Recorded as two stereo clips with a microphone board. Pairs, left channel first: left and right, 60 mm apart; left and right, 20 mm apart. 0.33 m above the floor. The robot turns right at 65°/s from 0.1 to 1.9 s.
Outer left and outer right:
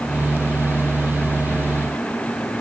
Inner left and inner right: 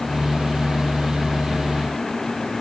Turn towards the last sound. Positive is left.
No sound to turn to.